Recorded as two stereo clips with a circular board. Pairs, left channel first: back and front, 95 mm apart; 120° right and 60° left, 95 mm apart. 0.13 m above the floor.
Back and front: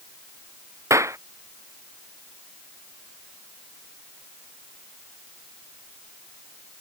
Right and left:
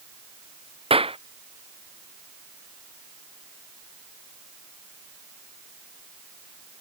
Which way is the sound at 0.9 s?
60° left.